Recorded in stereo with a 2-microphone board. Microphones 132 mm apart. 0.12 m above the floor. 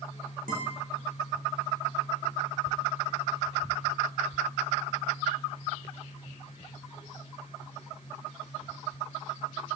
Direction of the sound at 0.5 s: 80° right.